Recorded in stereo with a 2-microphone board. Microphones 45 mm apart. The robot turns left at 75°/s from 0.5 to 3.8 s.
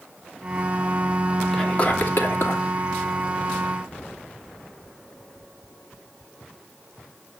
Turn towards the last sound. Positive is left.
turn(degrees=5)